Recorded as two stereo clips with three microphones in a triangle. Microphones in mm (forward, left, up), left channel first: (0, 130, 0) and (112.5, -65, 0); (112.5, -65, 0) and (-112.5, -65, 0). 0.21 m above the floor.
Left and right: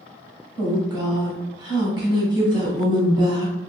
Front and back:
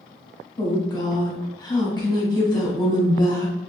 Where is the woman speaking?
25° right, 1.1 m.